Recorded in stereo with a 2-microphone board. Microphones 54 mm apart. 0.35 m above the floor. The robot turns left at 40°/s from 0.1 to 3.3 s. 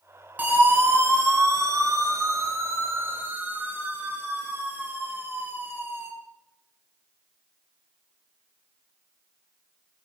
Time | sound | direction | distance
0.4 | a siren | 35° right (ahead or behind) | 7 m